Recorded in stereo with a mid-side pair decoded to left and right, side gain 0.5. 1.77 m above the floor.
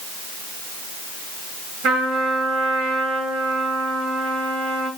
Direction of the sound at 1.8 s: 60° right.